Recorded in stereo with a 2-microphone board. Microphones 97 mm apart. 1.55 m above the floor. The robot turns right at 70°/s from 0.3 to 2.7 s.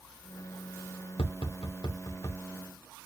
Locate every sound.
1.2 s tapping: 75° left (ahead or behind), 0.8 m; by 2.4 s 20° left (ahead or behind), 0.8 m